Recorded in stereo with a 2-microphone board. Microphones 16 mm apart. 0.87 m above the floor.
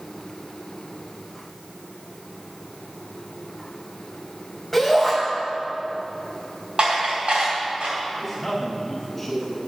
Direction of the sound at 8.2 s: 20° left (ahead or behind).